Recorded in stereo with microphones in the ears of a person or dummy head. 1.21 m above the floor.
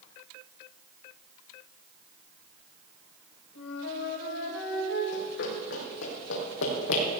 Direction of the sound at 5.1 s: 65° left (ahead or behind).